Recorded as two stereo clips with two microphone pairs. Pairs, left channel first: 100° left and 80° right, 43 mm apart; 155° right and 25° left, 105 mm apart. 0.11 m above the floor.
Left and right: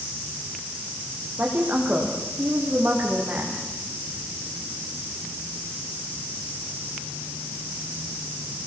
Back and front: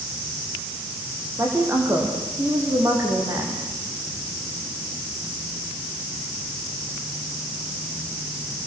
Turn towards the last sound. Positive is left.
turn(degrees=-40)